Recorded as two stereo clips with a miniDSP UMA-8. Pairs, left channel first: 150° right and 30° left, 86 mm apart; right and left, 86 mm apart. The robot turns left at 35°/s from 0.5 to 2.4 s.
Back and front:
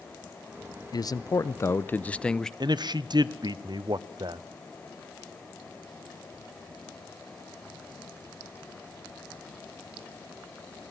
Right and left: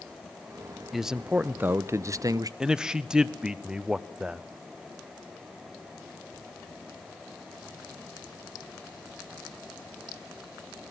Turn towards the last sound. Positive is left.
turn(degrees=10)